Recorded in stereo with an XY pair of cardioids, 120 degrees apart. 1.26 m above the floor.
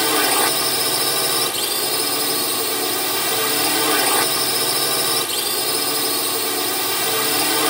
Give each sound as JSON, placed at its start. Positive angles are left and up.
{"t": 0.0, "sound": "a drone", "azimuth_deg": 0}